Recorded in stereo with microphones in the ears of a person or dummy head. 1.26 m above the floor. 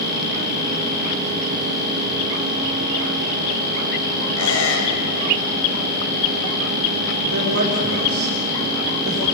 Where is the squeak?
85° left, 4.5 m.